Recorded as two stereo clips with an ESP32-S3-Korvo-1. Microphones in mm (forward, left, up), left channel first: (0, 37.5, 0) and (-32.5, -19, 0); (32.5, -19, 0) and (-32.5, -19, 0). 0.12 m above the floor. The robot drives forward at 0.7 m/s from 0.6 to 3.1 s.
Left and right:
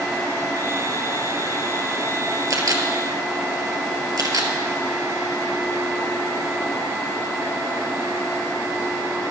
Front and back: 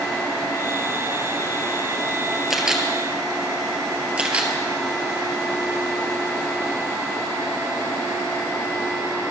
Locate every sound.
2.5 s a camera shutter: 95° right, 1.8 m; by 4.5 s 110° right, 1.9 m